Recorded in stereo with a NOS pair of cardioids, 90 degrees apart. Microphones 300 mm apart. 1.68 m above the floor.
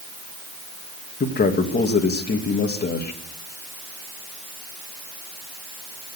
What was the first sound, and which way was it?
A man speaking, 30° left.